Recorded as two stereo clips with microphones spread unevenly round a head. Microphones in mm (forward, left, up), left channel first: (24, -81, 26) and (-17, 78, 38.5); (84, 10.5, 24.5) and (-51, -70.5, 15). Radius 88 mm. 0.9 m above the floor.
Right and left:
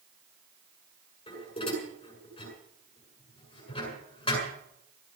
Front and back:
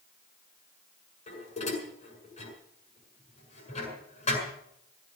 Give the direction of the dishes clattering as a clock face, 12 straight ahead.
12 o'clock.